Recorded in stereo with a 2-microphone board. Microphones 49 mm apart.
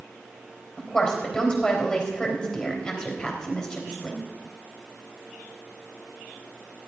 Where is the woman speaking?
20° left (ahead or behind), 3.5 m.